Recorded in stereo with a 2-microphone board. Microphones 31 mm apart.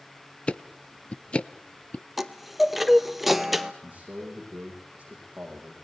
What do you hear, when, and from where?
0.5 s ticking: 35° left (ahead or behind), 0.7 m
2.2 s a chime: 5° right (ahead or behind), 0.9 m
3.8 s a man speaking: 45° right (ahead or behind), 7.5 m